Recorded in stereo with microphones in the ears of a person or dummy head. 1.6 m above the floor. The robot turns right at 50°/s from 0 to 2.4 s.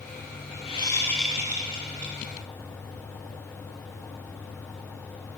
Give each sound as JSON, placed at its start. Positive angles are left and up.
{"t": 0.7, "sound": "a whoosh", "azimuth_deg": 150, "distance_m": 0.7}